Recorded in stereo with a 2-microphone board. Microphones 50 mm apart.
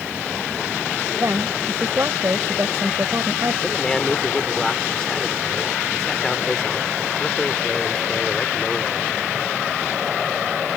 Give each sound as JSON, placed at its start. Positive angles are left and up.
{"t": 1.2, "sound": "a woman speaking", "side_deg": -70}
{"t": 3.6, "sound": "a man speaking", "side_deg": 10}